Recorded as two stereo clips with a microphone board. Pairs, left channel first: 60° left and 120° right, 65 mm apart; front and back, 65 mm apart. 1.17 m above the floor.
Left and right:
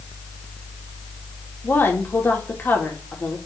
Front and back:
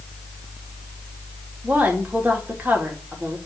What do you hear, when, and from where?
1.6 s a woman speaking: 115° left, 2.5 m